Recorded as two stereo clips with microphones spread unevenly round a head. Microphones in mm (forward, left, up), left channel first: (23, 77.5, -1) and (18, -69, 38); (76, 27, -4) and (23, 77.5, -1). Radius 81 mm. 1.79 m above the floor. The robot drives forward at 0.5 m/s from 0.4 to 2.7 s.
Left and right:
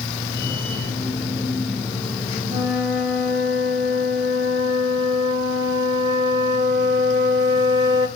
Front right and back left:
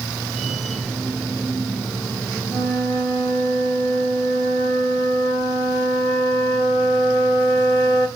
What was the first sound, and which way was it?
A flute, 155° right.